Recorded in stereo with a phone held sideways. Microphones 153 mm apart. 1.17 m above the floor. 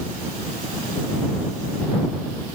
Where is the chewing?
I don't hear chewing.